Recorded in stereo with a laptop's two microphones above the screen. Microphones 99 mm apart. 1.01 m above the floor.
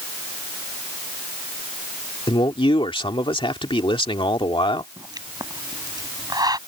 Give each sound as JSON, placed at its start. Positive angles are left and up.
{"t": 2.3, "sound": "a man speaking", "side_deg": 65}
{"t": 5.0, "sound": "a pop", "side_deg": -45}